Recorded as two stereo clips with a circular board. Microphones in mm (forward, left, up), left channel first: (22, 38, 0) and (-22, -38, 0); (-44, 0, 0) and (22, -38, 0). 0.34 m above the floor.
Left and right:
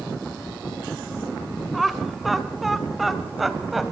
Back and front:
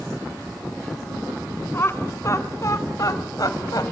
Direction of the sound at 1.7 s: 150° left.